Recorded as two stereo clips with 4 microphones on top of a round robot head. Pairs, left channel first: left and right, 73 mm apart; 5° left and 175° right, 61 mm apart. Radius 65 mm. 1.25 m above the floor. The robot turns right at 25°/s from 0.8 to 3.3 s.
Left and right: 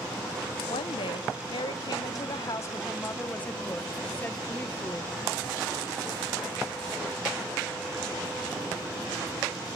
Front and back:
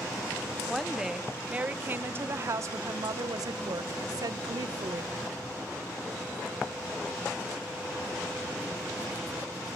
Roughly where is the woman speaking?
Left.